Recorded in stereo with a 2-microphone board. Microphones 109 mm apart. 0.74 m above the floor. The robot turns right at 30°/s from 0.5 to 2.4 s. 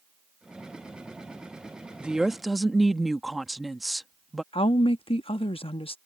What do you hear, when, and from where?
2.0 s a woman speaking: 10° right (ahead or behind); by 4.4 s centre (ahead or behind)
4.5 s a woman speaking: 55° left (ahead or behind)